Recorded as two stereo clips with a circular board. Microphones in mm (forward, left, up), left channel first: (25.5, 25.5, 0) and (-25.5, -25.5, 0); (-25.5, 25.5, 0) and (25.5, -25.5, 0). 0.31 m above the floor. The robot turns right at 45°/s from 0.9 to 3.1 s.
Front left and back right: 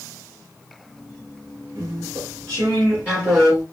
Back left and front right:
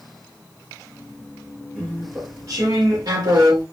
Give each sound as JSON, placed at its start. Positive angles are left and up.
{"t": 1.8, "sound": "chewing", "azimuth_deg": -120, "distance_m": 2.5}